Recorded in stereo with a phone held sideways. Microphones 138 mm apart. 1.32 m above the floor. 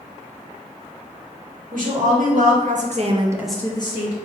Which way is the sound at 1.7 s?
80° right.